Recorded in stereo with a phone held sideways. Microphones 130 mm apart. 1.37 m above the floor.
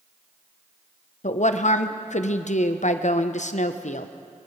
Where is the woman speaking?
60° left (ahead or behind), 0.7 m.